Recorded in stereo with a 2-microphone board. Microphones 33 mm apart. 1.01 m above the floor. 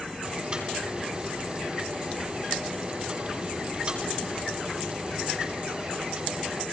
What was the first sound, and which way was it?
Boiling, 30° right (ahead or behind).